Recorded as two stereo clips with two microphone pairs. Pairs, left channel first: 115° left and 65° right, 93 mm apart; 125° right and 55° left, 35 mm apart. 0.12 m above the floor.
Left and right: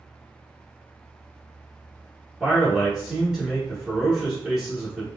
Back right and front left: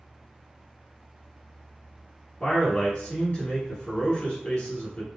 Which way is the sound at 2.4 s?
145° right.